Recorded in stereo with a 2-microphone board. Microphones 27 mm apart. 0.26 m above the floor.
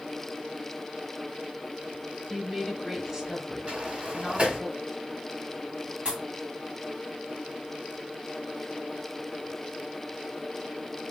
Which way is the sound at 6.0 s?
35° right (ahead or behind).